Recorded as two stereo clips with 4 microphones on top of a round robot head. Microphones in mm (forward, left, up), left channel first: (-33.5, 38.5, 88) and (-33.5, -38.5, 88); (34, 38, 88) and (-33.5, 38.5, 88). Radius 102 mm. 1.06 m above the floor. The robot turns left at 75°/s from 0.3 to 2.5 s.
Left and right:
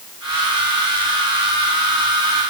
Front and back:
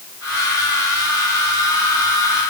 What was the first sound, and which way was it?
Only background noise.